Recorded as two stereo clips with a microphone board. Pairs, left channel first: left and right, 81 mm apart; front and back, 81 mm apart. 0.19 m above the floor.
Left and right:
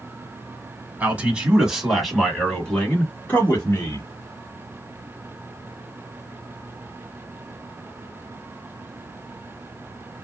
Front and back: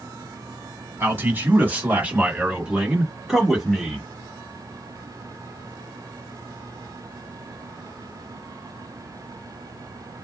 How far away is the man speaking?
About 1.7 m.